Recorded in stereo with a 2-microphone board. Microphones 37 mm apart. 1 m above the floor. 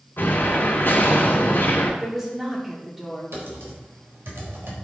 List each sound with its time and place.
0.2 s an explosion: 60° left (ahead or behind), 2.5 m
2.0 s a woman speaking: 10° right (ahead or behind), 2.5 m
3.3 s typing on a keyboard: 70° right (ahead or behind), 4 m